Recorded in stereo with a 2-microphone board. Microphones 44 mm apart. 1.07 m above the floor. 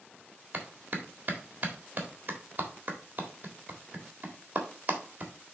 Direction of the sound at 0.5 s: 40° right (ahead or behind).